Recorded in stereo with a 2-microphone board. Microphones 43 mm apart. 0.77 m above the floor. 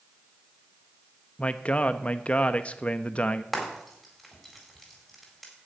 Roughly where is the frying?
Centre.